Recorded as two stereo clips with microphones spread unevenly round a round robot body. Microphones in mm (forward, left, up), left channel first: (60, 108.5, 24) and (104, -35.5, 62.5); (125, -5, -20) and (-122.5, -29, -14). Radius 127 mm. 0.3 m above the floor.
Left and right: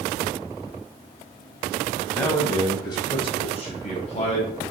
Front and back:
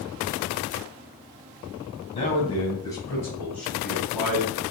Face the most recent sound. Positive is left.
turn(degrees=100)